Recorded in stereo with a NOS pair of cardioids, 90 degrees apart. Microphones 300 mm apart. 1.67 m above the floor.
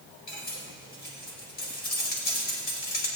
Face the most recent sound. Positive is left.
turn(degrees=35)